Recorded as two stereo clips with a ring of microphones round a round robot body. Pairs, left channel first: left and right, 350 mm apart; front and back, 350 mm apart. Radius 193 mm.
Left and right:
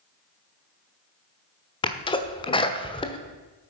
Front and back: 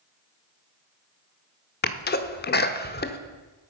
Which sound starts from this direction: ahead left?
A sneeze, at 1.8 s.